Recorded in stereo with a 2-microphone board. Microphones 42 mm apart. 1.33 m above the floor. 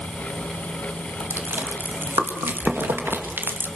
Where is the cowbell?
I don't hear a cowbell.